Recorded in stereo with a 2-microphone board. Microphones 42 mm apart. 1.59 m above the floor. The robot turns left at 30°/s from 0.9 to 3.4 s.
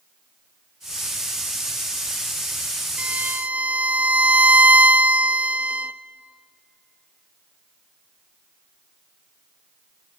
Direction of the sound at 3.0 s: 35° right (ahead or behind).